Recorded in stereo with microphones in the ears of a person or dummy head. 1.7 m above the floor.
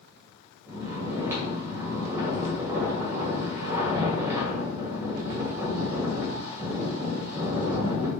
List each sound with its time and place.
0.7 s snoring: 10° right (ahead or behind), 1.7 m